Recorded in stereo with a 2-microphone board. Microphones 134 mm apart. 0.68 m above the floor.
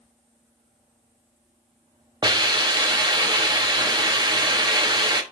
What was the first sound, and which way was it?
A hiss, 30° right (ahead or behind).